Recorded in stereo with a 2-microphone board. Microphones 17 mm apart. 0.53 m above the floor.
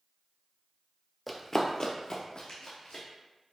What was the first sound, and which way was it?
Running footsteps, 5° left (ahead or behind).